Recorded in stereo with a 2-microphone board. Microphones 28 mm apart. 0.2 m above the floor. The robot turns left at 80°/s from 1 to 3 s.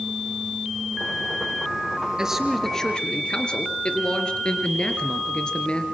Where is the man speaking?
150° right, 3 m; by 5.8 s 145° left, 3 m.